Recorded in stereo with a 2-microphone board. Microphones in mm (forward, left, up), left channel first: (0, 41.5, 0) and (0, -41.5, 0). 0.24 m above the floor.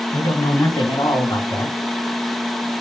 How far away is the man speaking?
About 1.6 m.